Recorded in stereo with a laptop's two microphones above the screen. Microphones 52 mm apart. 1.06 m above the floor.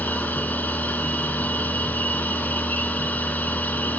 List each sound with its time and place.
0.0 s a machine running: 30° left (ahead or behind), 3 m